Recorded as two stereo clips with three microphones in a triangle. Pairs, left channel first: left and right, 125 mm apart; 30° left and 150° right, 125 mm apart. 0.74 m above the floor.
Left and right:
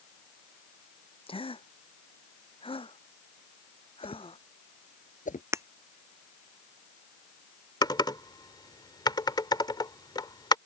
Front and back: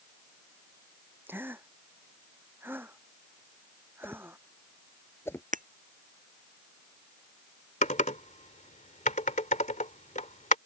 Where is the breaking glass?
160° right.